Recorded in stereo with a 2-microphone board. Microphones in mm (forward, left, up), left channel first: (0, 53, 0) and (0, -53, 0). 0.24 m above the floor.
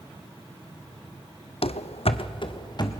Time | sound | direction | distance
1.6 | running footsteps | 65° left (ahead or behind) | 0.6 m